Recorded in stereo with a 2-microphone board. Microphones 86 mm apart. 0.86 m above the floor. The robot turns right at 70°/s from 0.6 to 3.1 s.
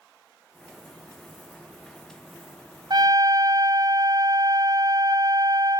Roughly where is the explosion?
No explosion in this recording.